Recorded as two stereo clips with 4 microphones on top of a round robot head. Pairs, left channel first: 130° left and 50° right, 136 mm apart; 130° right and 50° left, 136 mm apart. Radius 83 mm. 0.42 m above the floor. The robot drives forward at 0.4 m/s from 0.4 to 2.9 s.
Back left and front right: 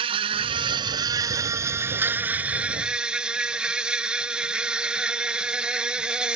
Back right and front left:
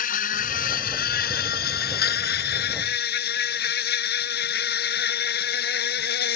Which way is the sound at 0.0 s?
105° right.